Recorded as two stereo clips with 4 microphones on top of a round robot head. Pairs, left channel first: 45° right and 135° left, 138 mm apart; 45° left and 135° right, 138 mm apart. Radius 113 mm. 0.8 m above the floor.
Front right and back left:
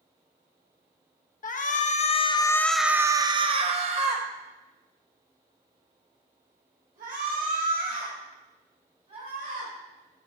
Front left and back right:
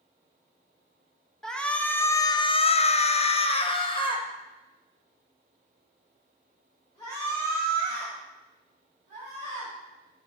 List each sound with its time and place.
1.4 s a shout: 40° right, 0.8 m; by 10.3 s 115° left, 4 m